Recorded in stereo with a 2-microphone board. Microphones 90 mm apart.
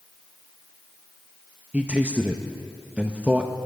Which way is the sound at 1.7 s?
15° right (ahead or behind).